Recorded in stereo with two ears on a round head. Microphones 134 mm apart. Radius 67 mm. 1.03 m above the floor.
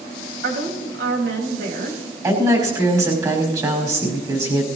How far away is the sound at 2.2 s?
About 5.5 m.